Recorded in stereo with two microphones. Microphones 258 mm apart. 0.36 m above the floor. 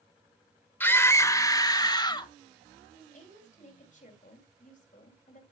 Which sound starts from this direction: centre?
A scream, at 0.8 s.